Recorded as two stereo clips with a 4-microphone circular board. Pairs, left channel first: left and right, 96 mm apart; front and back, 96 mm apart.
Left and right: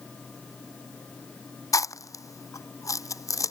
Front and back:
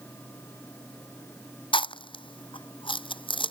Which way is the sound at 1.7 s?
35° left.